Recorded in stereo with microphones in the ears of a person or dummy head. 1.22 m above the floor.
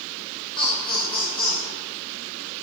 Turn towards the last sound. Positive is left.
turn(degrees=20)  # may be behind; listen again after turning